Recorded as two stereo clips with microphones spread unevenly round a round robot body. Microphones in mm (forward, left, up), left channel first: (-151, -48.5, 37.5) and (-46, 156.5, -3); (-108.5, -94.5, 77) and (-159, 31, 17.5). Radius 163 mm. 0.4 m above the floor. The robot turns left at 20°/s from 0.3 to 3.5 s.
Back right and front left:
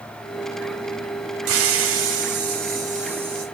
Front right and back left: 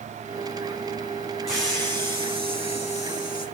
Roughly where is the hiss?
Ahead left.